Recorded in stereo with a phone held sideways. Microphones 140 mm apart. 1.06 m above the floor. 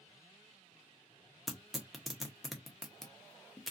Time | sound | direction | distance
1.5 | tearing paper | centre (ahead or behind) | 0.8 m